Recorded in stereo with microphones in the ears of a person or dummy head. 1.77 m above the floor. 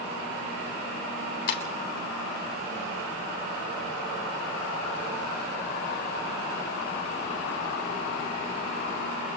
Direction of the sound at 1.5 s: 60° left (ahead or behind).